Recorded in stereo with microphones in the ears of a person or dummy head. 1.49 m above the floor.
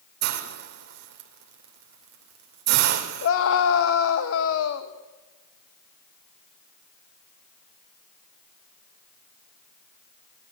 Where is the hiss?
60° right (ahead or behind), 2.5 m.